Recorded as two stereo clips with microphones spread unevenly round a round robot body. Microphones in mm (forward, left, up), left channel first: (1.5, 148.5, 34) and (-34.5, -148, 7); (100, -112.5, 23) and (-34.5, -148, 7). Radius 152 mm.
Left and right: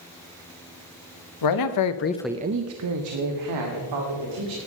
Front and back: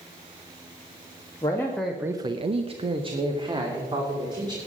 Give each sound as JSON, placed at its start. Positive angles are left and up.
{"t": 1.4, "sound": "a man speaking", "azimuth_deg": 95, "distance_m": 1.3}